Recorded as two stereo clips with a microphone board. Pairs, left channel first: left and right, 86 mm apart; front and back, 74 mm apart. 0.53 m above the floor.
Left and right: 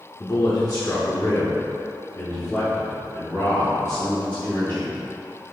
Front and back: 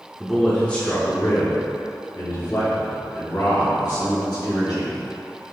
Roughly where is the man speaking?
Left.